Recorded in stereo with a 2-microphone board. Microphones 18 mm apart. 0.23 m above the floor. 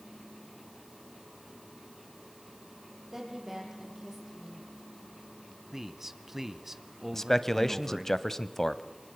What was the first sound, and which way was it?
A woman speaking, 25° right (ahead or behind).